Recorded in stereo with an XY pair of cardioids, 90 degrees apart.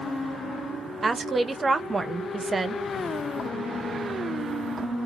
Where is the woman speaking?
35° right, 0.7 m.